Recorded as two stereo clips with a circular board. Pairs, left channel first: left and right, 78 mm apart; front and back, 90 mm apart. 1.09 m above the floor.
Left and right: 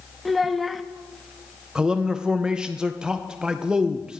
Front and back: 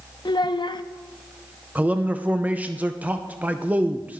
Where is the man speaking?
145° right, 0.6 m.